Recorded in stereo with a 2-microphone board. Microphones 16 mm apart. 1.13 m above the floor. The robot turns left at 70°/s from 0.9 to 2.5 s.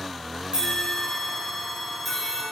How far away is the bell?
About 4.5 m.